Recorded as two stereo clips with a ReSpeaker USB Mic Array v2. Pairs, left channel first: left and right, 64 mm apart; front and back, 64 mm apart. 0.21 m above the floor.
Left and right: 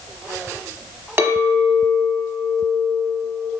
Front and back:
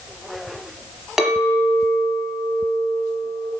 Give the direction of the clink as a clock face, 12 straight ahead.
3 o'clock.